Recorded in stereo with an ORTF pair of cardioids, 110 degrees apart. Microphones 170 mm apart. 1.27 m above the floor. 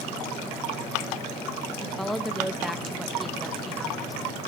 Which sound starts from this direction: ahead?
A woman speaking, at 1.8 s.